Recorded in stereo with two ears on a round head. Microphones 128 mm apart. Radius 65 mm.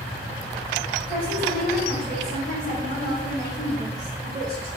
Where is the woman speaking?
35° right (ahead or behind), 3.5 m.